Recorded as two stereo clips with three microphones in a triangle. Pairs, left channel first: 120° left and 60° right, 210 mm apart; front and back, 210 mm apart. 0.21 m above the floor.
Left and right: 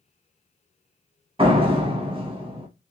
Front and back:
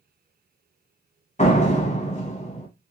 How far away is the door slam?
About 0.8 m.